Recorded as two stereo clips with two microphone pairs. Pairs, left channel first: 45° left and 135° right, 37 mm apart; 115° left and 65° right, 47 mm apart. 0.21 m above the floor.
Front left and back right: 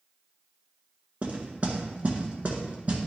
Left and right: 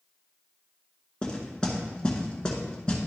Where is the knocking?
Straight behind, 1.5 m.